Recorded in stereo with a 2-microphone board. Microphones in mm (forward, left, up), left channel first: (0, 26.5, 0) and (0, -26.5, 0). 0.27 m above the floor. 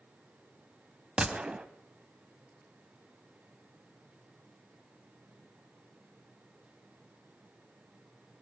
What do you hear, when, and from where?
1.2 s a gunshot: 20° right (ahead or behind), 0.7 m